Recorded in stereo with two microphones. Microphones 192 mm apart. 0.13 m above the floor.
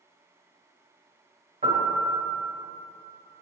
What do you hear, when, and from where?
1.6 s a piano: 40° right (ahead or behind), 2 m